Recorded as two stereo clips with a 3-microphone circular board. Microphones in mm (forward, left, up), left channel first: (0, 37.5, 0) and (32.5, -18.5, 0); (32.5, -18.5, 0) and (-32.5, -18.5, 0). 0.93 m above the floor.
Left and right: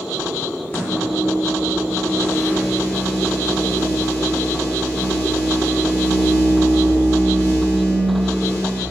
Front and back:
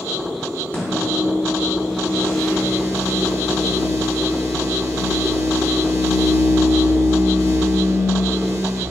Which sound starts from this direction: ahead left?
A microwave, at 0.7 s.